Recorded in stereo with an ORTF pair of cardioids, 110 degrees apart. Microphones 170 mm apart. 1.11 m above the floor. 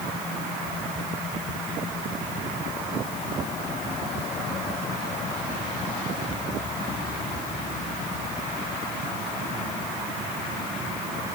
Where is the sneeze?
I don't hear a sneeze.